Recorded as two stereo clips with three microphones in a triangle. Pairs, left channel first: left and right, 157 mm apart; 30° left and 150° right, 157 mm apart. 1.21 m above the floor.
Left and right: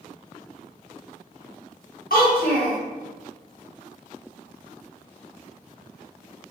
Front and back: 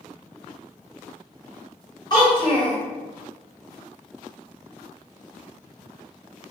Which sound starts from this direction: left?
A child speaking, at 2.1 s.